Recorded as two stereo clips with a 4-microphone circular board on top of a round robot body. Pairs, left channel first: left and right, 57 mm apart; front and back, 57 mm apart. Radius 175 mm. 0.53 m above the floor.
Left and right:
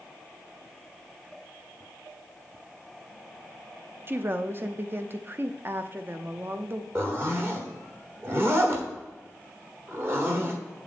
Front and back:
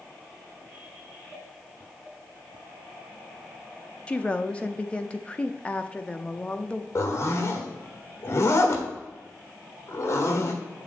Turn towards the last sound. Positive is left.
turn(degrees=-40)